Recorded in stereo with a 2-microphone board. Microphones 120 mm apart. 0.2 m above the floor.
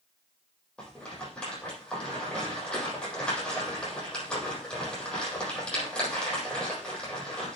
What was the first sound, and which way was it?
A rattle, 10° left (ahead or behind).